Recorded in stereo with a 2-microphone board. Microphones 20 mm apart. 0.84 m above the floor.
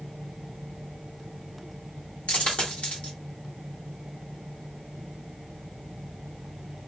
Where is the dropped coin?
75° left (ahead or behind), 1.1 m.